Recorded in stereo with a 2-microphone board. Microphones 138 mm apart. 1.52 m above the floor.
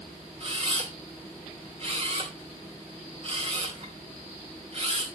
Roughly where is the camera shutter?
Right.